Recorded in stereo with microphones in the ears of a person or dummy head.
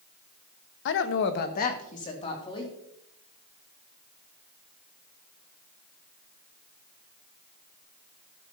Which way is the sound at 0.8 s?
60° left (ahead or behind).